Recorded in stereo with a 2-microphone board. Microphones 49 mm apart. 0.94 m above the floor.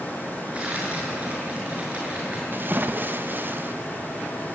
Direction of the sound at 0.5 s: 25° right (ahead or behind).